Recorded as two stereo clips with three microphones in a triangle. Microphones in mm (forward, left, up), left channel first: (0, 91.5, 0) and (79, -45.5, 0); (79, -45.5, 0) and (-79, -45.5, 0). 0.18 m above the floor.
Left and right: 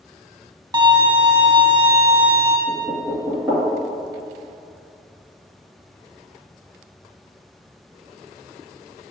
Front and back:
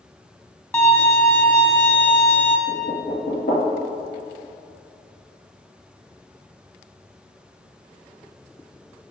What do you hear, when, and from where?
0.7 s a violin: 60° right, 0.9 m
2.7 s knocking: 15° left, 2.5 m